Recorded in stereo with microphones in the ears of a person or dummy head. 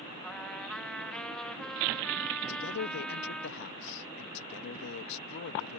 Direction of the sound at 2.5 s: 60° left (ahead or behind).